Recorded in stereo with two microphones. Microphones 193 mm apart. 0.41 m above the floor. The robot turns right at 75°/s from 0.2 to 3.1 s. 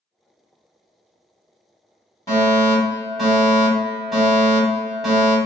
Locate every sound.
2.3 s a fire alarm: 20° left (ahead or behind), 1.7 m; by 5.4 s centre (ahead or behind), 1.7 m